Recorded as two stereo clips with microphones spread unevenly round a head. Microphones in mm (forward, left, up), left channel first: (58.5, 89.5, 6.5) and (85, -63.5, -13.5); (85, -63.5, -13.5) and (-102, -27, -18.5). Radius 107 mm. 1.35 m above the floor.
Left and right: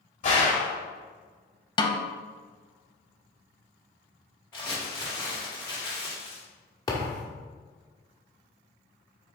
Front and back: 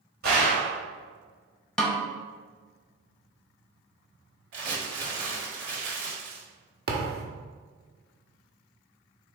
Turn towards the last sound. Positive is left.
turn(degrees=155)